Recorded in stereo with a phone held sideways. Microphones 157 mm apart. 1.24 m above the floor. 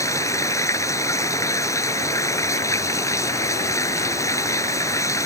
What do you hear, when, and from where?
0.0 s running water: 20° left (ahead or behind)